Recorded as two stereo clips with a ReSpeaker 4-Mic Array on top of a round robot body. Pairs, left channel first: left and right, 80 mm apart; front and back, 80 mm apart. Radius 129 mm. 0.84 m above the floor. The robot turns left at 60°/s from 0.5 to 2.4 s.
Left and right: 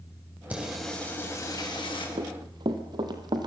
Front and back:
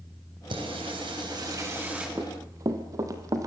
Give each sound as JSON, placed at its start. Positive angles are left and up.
{"t": 0.5, "sound": "singing", "azimuth_deg": -165, "distance_m": 5.5}
{"t": 2.2, "sound": "running footsteps", "azimuth_deg": -115, "distance_m": 1.5}